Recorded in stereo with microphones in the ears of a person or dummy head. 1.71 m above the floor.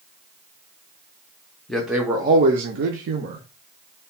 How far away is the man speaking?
About 0.7 m.